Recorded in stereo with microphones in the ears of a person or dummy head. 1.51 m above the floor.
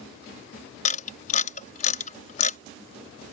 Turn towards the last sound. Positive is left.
turn(degrees=45)  # may be behind; listen again after turning